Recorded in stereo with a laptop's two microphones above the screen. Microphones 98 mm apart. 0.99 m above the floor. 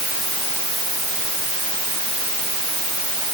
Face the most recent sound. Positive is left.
No sound to turn to.